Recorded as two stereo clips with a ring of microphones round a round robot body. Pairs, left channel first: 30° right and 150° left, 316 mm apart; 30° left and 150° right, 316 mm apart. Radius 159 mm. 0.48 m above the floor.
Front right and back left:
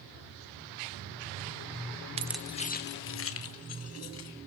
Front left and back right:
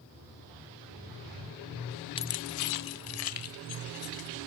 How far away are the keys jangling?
About 0.7 m.